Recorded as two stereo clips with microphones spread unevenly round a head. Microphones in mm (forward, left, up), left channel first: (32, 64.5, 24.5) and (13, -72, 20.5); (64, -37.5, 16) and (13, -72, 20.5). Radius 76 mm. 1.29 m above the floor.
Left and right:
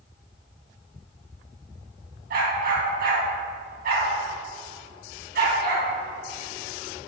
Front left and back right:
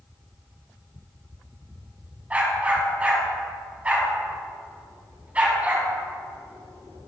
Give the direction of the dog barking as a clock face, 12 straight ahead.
3 o'clock.